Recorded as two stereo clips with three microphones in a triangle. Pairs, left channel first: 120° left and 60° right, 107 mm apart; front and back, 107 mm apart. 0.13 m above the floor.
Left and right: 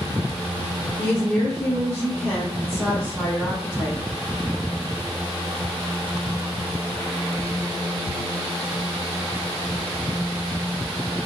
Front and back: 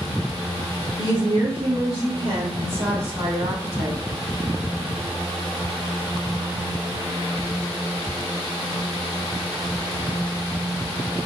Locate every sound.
1.0 s a woman speaking: 170° right, 2.5 m; by 4.0 s 160° right, 4.5 m